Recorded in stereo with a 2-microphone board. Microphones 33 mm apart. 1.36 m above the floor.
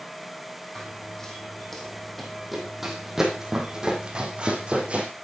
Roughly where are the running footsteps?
Left.